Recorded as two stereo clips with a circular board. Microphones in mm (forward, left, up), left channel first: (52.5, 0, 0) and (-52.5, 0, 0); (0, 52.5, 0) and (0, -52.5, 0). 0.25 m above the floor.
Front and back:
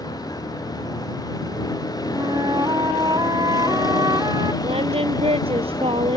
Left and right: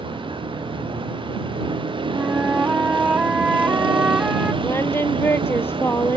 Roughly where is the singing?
Behind left.